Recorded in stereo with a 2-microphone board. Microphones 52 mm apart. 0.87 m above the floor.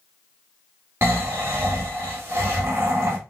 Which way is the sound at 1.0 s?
50° right (ahead or behind).